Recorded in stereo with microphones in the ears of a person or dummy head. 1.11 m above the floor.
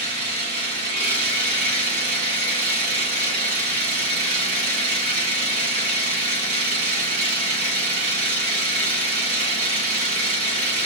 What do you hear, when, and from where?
0.0 s an engine running: 45° right (ahead or behind), 2 m